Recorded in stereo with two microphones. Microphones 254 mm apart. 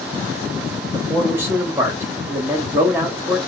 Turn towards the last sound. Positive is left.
turn(degrees=-10)  # may be behind; listen again after turning